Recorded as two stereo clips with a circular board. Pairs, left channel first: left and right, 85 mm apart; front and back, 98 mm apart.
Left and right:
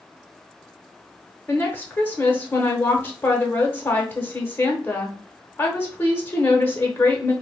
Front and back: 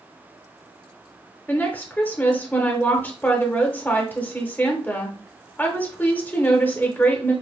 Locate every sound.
1.5 s a woman speaking: 50° left, 0.9 m